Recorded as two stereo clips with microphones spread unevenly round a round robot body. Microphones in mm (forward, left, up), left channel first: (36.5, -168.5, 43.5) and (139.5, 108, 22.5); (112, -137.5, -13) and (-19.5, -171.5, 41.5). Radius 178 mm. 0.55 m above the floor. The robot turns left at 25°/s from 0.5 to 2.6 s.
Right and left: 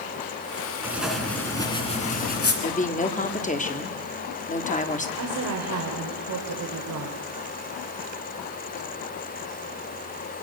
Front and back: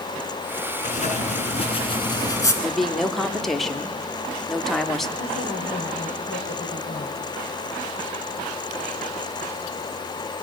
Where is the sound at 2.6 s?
50° right, 1.7 m.